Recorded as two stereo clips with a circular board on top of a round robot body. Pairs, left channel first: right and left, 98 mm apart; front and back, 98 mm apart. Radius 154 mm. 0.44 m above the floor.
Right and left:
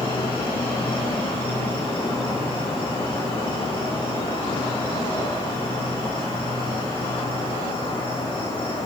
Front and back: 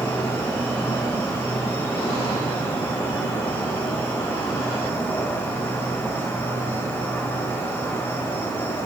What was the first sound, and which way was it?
An insect, 70° right.